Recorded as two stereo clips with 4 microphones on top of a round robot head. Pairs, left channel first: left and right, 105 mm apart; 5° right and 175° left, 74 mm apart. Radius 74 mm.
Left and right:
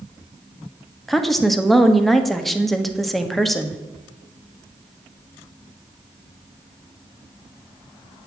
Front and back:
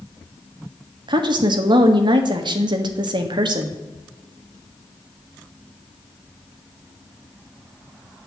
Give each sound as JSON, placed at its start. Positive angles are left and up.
{"t": 1.1, "sound": "a woman speaking", "azimuth_deg": 180, "distance_m": 1.4}